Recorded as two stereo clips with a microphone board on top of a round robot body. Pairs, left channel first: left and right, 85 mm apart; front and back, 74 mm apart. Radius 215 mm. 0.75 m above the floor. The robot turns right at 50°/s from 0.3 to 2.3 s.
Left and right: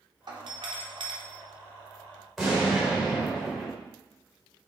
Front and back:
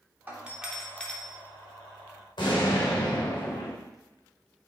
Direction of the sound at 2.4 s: Straight ahead.